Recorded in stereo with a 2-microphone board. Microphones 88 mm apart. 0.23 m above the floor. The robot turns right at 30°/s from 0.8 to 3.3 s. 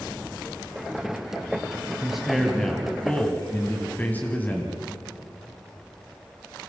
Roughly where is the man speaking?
Ahead.